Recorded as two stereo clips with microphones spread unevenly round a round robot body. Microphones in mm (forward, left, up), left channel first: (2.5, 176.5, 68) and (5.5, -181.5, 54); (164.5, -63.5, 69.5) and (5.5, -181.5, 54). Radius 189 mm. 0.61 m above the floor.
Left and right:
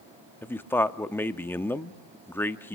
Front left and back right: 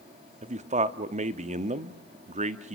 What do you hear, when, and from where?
0.4 s a man speaking: 175° left, 0.8 m